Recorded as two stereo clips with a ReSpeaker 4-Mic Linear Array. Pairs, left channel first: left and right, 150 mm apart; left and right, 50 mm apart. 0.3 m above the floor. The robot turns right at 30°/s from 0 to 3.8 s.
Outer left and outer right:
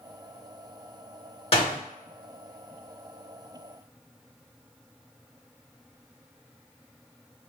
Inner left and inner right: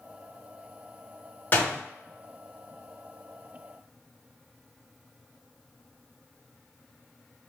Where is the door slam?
40° left (ahead or behind), 1.2 m.